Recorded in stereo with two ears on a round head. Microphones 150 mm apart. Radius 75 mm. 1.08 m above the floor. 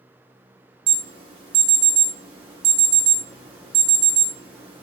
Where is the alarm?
35° right (ahead or behind), 0.7 m.